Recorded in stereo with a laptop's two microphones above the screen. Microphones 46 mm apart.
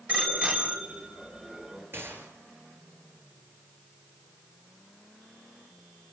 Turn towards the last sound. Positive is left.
turn(degrees=-55)  # may be behind; listen again after turning